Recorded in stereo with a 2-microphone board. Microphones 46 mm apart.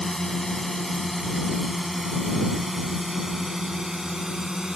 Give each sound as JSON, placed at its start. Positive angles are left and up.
{"t": 0.0, "sound": "a drone", "side_deg": 10}